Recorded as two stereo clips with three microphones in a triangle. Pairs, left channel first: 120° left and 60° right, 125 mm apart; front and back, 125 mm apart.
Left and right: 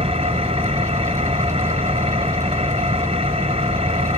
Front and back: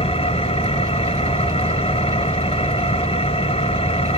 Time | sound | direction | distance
0.0 | an engine running | 25° right | 1.2 m